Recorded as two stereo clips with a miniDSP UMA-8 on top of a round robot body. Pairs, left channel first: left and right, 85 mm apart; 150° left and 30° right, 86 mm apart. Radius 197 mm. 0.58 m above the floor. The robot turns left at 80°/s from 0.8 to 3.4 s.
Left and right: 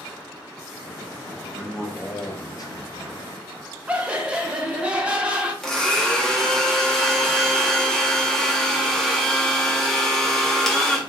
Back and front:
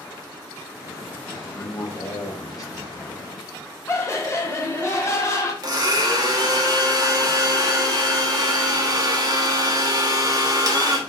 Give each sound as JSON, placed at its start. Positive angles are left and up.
{"t": 1.5, "sound": "a man speaking", "azimuth_deg": -160, "distance_m": 1.2}
{"t": 3.9, "sound": "laughter", "azimuth_deg": -165, "distance_m": 1.3}
{"t": 5.6, "sound": "a blender", "azimuth_deg": 5, "distance_m": 1.2}